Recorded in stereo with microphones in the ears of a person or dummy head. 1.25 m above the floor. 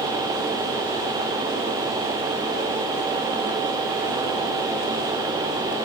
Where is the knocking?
I don't hear knocking.